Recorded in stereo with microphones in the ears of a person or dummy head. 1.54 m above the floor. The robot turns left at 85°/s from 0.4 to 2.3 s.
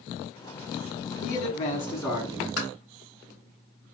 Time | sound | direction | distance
1.2 | a man speaking | 80° left | 1.1 m
2.6 | tapping | 60° left (ahead or behind) | 1.5 m